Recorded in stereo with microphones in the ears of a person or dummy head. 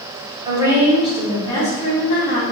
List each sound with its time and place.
0.5 s a woman speaking: 20° right (ahead or behind), 0.8 m; by 2.4 s 50° left (ahead or behind), 1.1 m